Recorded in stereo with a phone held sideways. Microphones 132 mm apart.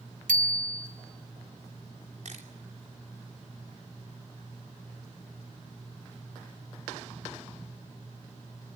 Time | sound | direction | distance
0.3 | a bicycle bell | 85° right | 3.5 m
2.2 | a camera shutter | 65° right (ahead or behind) | 3 m